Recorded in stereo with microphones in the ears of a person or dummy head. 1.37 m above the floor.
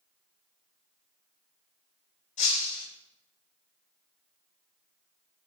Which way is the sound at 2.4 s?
45° left (ahead or behind).